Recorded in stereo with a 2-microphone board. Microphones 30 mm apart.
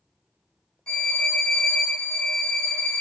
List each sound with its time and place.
0.9 s a violin: 30° left (ahead or behind), 1.6 m